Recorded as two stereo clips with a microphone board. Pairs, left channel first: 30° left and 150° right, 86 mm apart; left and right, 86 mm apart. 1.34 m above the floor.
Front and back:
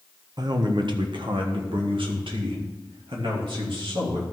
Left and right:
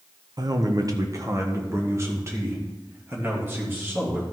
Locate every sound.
0.4 s a man speaking: 120° right, 0.9 m; by 4.2 s 155° right, 3 m